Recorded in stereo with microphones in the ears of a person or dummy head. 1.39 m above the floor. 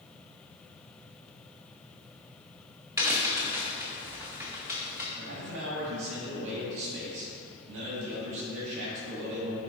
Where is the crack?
10° right (ahead or behind), 0.8 m.